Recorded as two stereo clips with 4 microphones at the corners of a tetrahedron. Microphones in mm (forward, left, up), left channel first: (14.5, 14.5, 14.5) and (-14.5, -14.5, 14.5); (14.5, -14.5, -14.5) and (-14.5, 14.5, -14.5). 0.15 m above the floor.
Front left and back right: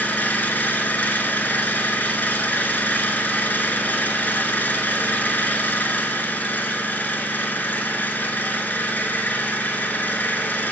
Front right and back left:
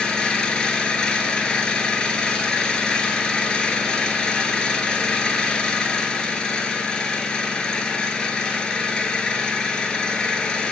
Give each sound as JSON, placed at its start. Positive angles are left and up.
{"t": 0.0, "sound": "an engine running", "azimuth_deg": 20, "distance_m": 0.7}